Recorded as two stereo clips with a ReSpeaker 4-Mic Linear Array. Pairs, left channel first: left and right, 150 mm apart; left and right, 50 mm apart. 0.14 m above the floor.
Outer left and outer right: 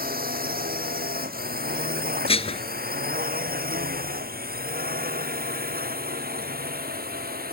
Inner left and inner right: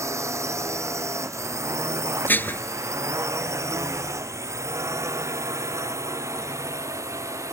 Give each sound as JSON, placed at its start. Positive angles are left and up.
{"t": 0.0, "sound": "a drone", "side_deg": -75}
{"t": 2.3, "sound": "dishes clattering", "side_deg": 40}